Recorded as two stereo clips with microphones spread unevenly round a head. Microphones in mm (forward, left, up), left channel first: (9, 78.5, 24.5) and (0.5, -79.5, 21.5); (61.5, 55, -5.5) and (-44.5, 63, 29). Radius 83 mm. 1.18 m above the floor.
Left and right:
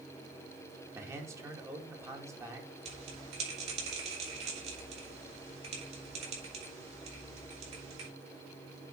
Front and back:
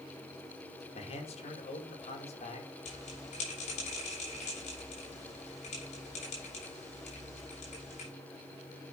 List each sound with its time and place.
0.9 s a man speaking: 20° right, 2.5 m
2.9 s a bell: 40° right, 6.5 m